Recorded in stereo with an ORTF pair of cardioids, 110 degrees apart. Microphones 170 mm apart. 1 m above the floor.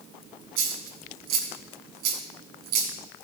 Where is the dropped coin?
70° right, 4 m.